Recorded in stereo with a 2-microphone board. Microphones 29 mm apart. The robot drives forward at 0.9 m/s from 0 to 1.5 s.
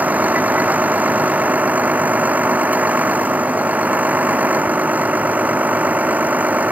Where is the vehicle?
80° right; by 6.7 s 70° right (ahead or behind).